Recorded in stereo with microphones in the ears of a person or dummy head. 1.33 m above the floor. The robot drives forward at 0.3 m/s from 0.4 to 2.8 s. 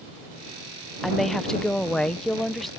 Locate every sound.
1.0 s a woman speaking: centre (ahead or behind)